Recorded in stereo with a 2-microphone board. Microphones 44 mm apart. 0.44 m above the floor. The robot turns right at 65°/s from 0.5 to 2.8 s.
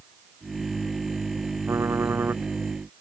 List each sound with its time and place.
1.7 s typing on a keyboard: 95° right; by 2.4 s 45° right